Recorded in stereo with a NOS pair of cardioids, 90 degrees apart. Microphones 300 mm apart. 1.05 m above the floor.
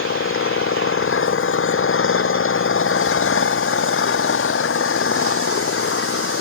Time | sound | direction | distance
0.0 | an engine running | 45° left | ?